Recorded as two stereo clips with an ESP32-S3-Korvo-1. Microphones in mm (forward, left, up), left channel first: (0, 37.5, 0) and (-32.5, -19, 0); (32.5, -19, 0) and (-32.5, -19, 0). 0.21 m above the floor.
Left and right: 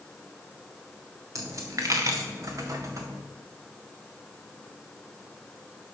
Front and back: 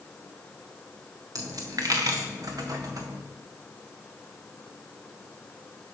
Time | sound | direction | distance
1.4 | a dropped coin | 155° right | 1.7 m